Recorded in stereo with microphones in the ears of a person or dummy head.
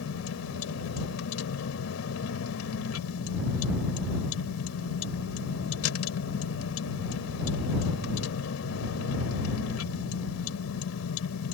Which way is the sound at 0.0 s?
85° left.